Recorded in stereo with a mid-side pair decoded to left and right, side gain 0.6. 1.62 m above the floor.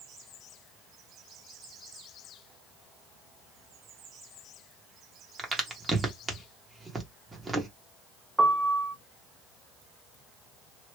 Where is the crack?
15° right, 1.3 m.